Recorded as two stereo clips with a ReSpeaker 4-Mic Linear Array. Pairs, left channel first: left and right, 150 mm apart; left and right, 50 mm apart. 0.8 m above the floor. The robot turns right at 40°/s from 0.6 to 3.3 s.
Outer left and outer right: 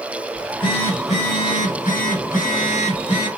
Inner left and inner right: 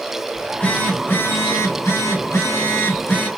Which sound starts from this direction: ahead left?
A phone buzzing, at 0.3 s.